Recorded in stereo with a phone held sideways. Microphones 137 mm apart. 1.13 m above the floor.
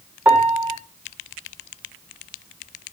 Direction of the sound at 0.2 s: 10° right (ahead or behind).